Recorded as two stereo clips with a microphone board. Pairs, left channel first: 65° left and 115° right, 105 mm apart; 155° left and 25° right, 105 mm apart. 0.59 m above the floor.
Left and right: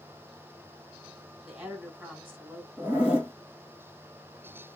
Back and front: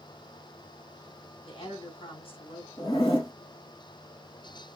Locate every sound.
1.4 s a woman speaking: 160° left, 3 m
2.8 s a zipper: 170° left, 2 m